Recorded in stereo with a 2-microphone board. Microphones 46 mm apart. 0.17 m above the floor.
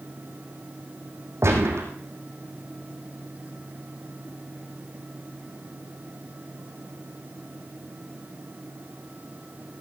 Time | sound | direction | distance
1.4 | a gunshot | 70° right (ahead or behind) | 3.5 m